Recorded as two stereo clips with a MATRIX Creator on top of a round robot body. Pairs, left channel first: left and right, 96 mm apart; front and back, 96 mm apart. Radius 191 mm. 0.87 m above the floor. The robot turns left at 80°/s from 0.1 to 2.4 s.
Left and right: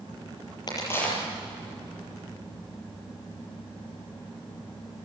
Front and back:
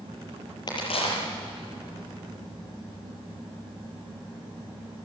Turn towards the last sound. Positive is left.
turn(degrees=-95)